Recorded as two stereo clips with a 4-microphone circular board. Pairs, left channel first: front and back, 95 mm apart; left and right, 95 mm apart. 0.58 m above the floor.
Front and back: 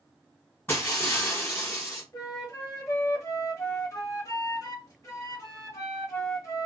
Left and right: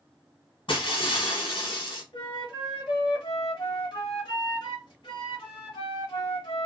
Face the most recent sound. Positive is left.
turn(degrees=60)